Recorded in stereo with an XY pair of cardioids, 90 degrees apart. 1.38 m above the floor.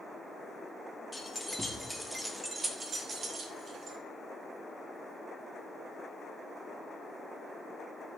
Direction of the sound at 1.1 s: 15° left.